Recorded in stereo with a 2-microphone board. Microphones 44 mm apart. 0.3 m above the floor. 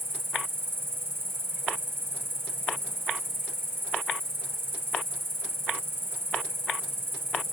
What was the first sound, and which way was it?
An insect, 60° right (ahead or behind).